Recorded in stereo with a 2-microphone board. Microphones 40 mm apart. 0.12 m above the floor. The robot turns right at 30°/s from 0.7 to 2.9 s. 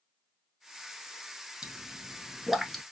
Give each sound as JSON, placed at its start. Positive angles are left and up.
{"t": 1.6, "sound": "a pop", "side_deg": -15, "distance_m": 0.9}